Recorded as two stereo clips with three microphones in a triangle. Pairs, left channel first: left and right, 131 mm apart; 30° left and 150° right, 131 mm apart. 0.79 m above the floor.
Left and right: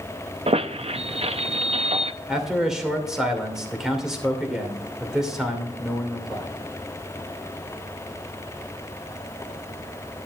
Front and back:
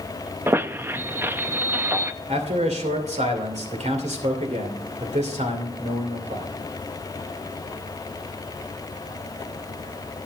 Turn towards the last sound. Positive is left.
turn(degrees=-175)